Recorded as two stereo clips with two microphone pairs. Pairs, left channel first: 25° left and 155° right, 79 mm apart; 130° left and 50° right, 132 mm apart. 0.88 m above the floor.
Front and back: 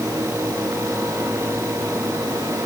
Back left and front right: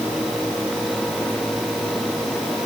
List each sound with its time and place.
Only background noise.